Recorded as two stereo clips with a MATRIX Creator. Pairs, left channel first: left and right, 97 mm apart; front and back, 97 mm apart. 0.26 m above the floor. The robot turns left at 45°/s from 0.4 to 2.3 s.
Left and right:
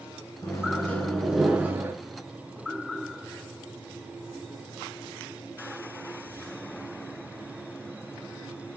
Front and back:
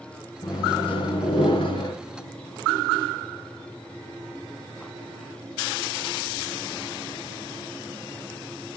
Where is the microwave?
40° left, 3 m; by 1.9 s 30° right, 3 m.